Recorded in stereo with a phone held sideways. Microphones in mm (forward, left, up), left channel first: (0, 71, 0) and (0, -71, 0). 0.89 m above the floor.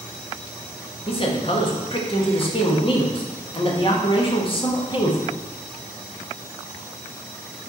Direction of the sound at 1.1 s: 40° left (ahead or behind).